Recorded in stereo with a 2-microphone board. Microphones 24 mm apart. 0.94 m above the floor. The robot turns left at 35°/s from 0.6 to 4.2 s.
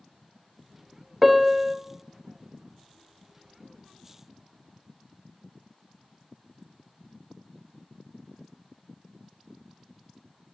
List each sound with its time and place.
1.2 s a piano: 10° right (ahead or behind), 0.6 m; by 1.8 s 15° right (ahead or behind), 0.6 m